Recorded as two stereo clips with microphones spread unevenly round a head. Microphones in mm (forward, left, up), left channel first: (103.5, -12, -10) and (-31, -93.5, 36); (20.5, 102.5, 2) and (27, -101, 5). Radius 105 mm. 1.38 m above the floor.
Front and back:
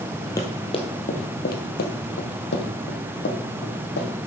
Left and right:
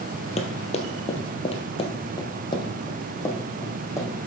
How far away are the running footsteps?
About 1.6 m.